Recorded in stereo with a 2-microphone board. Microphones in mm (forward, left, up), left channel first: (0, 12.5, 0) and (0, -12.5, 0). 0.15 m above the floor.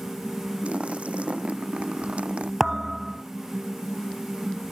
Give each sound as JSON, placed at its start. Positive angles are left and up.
{"t": 0.6, "sound": "a splash", "side_deg": -55}
{"t": 2.6, "sound": "a thud", "side_deg": -15}